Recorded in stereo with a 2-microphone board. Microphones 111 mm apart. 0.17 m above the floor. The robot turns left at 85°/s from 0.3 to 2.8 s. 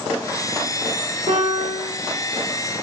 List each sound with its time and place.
1.3 s a piano: 100° right, 7.5 m; by 1.9 s 155° right, 7.5 m